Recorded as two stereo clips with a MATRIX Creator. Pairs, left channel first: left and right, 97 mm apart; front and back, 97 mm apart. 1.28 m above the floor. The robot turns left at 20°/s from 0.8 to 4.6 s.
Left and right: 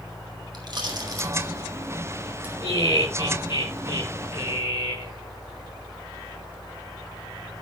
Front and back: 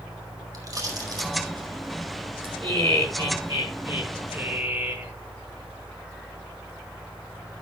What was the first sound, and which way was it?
A pop, 130° right.